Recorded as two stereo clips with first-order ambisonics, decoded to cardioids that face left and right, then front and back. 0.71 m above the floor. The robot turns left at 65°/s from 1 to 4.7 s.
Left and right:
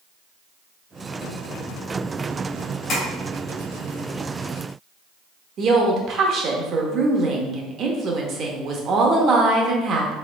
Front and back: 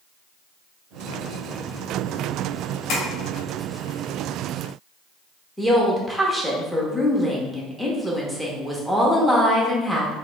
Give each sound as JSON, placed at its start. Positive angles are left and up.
{"t": 2.9, "sound": "tapping", "azimuth_deg": 45, "distance_m": 2.0}
{"t": 5.6, "sound": "a woman speaking", "azimuth_deg": -90, "distance_m": 0.7}